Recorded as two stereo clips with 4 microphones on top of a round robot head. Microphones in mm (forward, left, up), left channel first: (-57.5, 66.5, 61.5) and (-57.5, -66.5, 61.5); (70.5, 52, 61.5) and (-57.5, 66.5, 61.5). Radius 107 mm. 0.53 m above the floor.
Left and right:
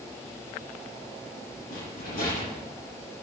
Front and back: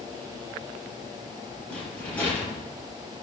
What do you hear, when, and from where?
1.7 s a rattle: 70° left, 6.5 m